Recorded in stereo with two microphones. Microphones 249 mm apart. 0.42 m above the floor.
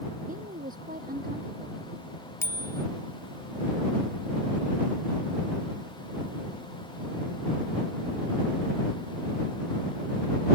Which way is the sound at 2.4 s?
10° left (ahead or behind).